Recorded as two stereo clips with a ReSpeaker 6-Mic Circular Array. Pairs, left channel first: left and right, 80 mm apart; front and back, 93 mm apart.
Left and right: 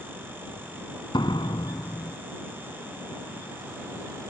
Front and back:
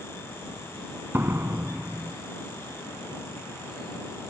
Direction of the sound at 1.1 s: 115° left.